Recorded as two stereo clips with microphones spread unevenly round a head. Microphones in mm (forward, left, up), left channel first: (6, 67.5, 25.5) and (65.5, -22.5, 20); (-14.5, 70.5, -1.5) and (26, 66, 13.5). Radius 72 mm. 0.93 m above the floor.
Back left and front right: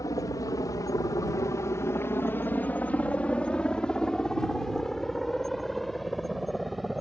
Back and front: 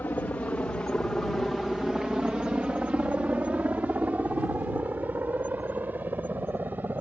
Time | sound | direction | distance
0.0 | a helicopter | straight behind | ?